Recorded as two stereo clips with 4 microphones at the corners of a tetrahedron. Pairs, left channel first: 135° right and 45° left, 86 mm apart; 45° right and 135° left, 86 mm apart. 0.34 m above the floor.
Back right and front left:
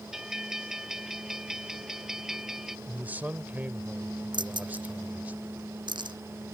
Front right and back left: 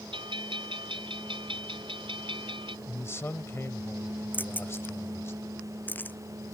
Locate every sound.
0.1 s a bell: 130° left
2.9 s a man speaking: 10° right
4.3 s keys jangling: 20° left